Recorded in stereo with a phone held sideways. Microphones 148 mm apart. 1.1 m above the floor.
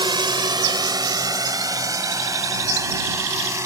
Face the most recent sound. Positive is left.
turn(degrees=-20)  # may be behind; listen again after turning